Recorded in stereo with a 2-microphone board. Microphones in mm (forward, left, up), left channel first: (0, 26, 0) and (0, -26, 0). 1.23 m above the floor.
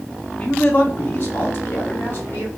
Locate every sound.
0.4 s a man speaking: 30° left (ahead or behind), 0.6 m; by 2.5 s 50° left (ahead or behind), 1.7 m